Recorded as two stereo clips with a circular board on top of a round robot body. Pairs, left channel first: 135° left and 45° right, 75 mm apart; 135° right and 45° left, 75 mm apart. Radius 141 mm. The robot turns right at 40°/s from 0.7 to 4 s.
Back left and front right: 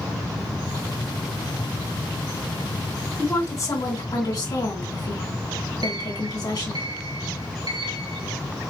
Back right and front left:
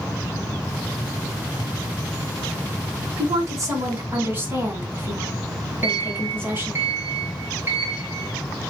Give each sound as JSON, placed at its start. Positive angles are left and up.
{"t": 3.2, "sound": "a woman speaking", "azimuth_deg": 75, "distance_m": 3.5}
{"t": 5.8, "sound": "a sliding door", "azimuth_deg": -20, "distance_m": 2.5}